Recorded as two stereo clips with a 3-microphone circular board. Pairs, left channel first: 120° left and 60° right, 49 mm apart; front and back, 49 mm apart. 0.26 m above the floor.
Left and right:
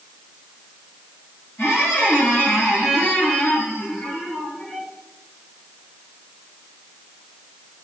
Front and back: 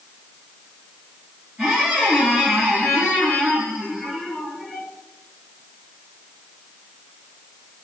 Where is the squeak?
90° left, 1.6 m.